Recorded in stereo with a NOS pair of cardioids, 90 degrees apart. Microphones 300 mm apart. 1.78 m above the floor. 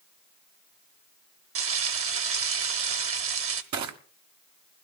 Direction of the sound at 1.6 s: 50° right.